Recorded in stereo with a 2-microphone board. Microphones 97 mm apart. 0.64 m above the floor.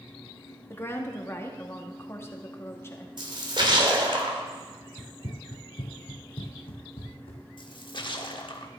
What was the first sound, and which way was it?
A woman speaking, 25° left (ahead or behind).